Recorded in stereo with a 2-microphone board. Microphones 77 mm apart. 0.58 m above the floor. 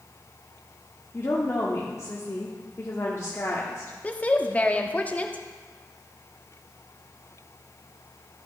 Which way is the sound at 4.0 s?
20° left (ahead or behind).